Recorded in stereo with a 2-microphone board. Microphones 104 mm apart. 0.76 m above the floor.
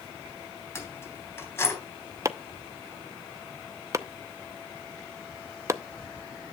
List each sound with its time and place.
0.8 s keys jangling: 25° left (ahead or behind), 3 m
2.2 s chopping: 30° right (ahead or behind), 0.6 m